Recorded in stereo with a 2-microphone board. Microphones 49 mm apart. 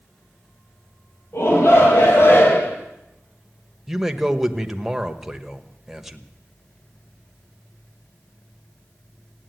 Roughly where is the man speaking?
Centre.